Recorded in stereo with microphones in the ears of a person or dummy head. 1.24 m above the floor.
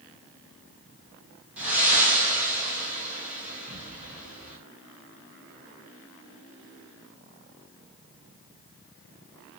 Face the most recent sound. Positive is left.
turn(degrees=-10)  # may be behind; listen again after turning